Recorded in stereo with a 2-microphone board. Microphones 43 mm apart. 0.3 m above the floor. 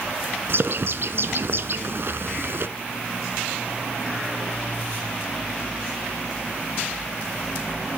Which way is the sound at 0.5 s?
60° right (ahead or behind).